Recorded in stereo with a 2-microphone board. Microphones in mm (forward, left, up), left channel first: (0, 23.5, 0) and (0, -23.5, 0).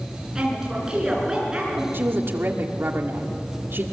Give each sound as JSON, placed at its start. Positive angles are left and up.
{"t": 0.3, "sound": "a woman speaking", "side_deg": -15, "distance_m": 8.5}
{"t": 1.9, "sound": "a woman speaking", "side_deg": -55, "distance_m": 1.9}